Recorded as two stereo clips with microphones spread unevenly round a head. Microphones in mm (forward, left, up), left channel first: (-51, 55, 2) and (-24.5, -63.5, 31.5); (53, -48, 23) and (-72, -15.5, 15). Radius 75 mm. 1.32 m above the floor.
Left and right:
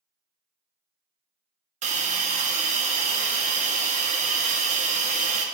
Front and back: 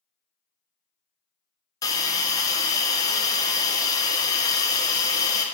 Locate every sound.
1.8 s a hiss: 70° right, 0.5 m